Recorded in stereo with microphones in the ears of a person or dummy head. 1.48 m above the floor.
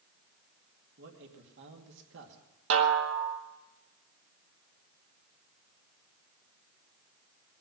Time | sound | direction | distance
1.0 | a man speaking | 60° right (ahead or behind) | 2 m
2.7 | a snare drum | 70° right (ahead or behind) | 1.6 m